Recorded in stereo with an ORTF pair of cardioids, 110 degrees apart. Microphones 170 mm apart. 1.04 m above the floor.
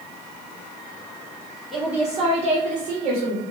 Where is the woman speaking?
Straight ahead, 0.7 m; by 3.4 s 75° right, 0.9 m.